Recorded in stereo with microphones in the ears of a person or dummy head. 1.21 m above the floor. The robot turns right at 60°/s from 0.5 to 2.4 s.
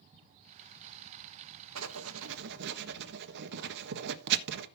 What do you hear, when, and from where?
1.8 s writing: 75° right (ahead or behind), 1.3 m; by 4.7 s 65° right (ahead or behind), 1.3 m